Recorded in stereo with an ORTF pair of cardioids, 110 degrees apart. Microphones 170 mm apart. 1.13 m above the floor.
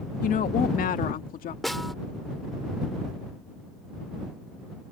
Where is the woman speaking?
55° left.